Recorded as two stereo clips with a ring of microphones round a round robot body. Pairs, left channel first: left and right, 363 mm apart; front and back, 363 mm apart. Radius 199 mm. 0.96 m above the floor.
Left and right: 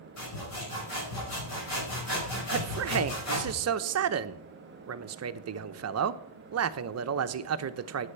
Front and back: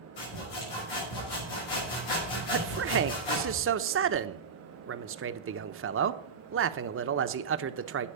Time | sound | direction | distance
0.2 | sawing | 35° left | 6 m
2.5 | a man speaking | 130° right | 0.8 m